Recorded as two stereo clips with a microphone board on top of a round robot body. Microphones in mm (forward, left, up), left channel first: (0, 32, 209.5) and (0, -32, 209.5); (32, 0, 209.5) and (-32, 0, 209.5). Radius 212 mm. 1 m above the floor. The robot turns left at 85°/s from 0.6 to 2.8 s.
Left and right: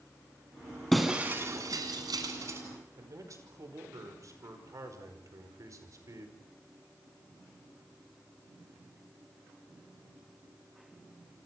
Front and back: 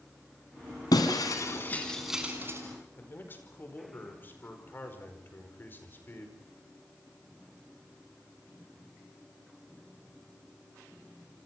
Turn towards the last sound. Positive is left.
turn(degrees=-55)